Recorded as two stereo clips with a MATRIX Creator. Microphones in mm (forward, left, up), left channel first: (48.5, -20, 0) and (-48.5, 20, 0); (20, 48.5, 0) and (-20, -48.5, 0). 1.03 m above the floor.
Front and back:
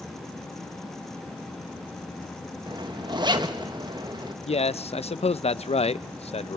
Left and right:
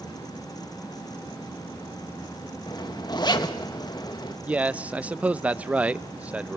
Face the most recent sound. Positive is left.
turn(degrees=-35)